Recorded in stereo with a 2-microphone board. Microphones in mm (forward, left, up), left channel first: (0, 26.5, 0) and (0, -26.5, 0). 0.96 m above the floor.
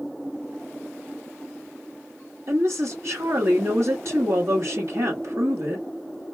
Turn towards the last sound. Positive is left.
turn(degrees=-65)  # may be behind; listen again after turning